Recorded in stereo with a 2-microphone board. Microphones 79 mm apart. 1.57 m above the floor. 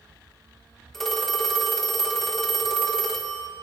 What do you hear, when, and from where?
0.9 s a phone ringing: 5° left (ahead or behind), 1.4 m